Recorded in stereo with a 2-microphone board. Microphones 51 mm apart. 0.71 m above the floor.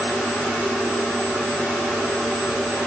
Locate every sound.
Only background noise.